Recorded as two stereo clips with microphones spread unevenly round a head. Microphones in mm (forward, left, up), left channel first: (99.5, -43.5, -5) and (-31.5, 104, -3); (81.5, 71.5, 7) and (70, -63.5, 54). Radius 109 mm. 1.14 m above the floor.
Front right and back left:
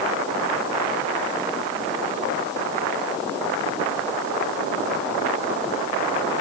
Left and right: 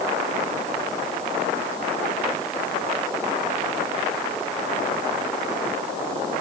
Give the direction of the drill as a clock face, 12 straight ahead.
I don't hear a drill.